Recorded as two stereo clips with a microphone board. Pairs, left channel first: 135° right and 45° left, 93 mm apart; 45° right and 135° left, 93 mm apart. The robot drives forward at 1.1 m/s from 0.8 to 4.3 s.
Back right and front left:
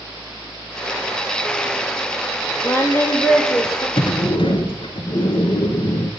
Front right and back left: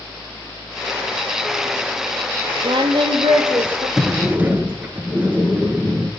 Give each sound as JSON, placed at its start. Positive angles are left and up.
{"t": 2.6, "sound": "singing", "azimuth_deg": 150, "distance_m": 0.9}
{"t": 4.0, "sound": "a sliding door", "azimuth_deg": -140, "distance_m": 0.7}